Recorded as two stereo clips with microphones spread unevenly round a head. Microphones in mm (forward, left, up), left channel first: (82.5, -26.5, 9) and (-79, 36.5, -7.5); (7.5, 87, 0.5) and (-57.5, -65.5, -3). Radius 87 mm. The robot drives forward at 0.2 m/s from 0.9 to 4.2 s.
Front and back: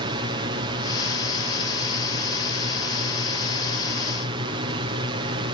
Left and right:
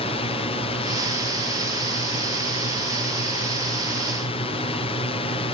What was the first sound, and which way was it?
A drone, 105° left.